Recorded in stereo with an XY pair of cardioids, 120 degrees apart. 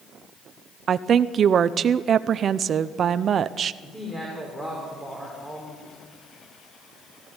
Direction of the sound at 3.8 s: 10° left.